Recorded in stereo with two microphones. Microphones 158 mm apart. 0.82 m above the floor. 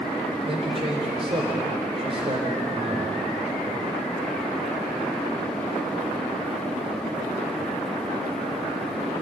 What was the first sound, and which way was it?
A man speaking, 35° right (ahead or behind).